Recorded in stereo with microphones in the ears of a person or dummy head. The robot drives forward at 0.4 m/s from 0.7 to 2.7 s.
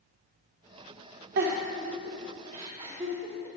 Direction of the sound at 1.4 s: 55° right (ahead or behind).